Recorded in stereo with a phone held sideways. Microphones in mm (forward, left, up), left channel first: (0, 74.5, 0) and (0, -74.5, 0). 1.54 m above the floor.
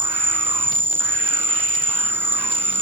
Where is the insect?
15° right (ahead or behind).